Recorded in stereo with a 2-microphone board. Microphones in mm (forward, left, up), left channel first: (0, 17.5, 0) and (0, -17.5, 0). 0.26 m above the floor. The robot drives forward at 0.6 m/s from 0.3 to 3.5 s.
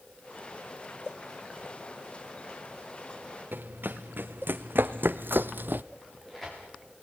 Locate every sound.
3.5 s running footsteps: 70° right (ahead or behind), 2 m; by 5.8 s 65° right (ahead or behind), 0.6 m
6.0 s tearing paper: 5° left (ahead or behind), 6 m